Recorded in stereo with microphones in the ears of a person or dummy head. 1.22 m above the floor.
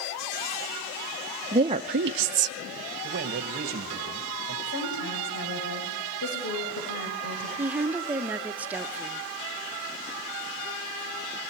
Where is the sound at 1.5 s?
15° right (ahead or behind), 0.9 m; by 2.6 s 65° right (ahead or behind), 0.8 m.